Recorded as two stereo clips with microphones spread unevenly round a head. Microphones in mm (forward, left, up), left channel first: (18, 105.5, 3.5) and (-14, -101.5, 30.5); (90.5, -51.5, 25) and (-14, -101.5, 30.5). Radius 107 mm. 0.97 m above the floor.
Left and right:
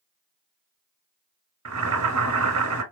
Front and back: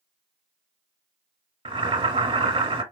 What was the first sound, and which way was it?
Boiling, 115° right.